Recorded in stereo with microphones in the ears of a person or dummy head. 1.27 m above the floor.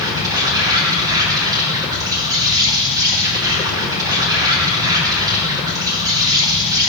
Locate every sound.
0.0 s an insect: 15° right (ahead or behind), 4 m